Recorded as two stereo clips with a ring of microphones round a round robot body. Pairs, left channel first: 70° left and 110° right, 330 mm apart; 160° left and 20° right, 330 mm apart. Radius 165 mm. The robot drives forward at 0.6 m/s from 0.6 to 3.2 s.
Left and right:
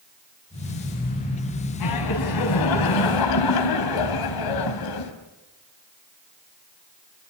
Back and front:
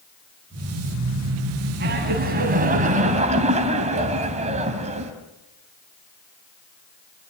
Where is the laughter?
40° left, 3.5 m; by 5.1 s 50° left, 3 m.